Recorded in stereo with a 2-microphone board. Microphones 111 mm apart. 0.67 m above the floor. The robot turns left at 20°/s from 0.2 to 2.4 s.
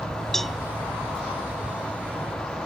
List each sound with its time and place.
0.3 s a cowbell: 5° left (ahead or behind); by 0.6 s centre (ahead or behind)